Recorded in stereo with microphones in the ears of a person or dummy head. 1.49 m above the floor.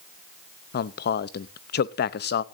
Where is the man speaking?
55° left (ahead or behind), 0.6 m.